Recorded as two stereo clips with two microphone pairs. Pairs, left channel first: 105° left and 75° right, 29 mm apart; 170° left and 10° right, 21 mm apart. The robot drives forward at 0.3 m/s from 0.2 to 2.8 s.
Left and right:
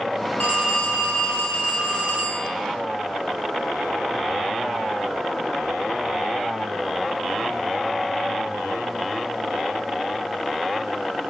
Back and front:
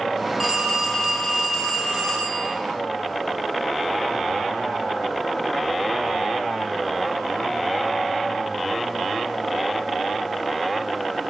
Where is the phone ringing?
80° left, 1.3 m; by 2.5 s 110° left, 1.3 m.